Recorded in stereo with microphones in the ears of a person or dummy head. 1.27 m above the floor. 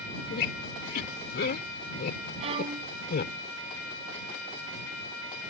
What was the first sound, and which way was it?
A squeak, 55° left (ahead or behind).